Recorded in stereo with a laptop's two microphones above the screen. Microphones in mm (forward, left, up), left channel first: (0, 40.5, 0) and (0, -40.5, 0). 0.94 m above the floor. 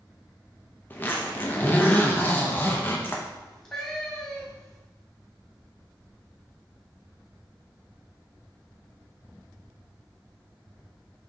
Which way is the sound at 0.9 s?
25° left (ahead or behind).